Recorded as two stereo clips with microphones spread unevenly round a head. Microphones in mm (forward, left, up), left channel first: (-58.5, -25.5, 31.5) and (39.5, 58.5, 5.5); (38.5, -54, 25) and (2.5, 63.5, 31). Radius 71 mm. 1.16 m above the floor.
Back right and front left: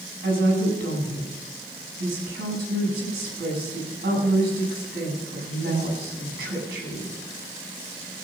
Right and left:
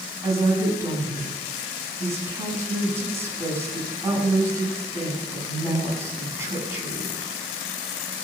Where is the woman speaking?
35° left, 9 m.